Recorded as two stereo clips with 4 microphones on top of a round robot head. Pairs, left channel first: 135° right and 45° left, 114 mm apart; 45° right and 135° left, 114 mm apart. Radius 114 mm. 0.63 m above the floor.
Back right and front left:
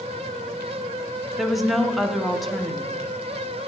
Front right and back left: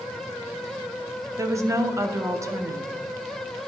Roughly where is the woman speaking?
Behind left.